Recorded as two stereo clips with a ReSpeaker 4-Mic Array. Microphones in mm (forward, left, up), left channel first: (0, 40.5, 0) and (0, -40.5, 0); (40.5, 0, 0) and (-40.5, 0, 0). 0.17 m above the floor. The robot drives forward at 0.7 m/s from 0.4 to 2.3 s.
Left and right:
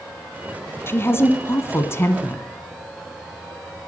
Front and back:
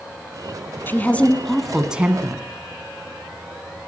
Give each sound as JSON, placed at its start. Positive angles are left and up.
{"t": 0.9, "sound": "a woman speaking", "azimuth_deg": 50, "distance_m": 1.3}